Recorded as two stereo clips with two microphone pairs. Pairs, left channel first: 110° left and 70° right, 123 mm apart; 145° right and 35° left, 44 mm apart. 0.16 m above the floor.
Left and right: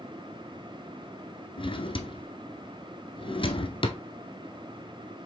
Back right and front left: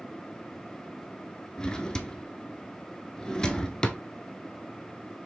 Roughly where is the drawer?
Behind left.